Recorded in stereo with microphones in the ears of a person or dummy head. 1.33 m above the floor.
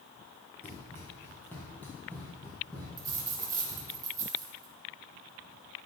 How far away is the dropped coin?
About 1.2 m.